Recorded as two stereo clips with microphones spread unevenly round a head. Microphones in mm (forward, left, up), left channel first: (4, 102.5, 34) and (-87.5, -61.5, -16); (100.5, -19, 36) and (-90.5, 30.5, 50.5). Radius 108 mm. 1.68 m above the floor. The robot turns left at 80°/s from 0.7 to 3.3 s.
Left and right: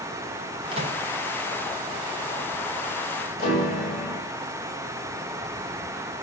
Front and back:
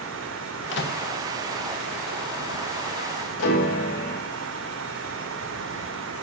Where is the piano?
5° left, 7.5 m.